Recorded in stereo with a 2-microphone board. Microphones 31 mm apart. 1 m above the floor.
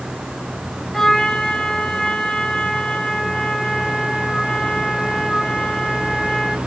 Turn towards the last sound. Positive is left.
turn(degrees=15)  # may be behind; listen again after turning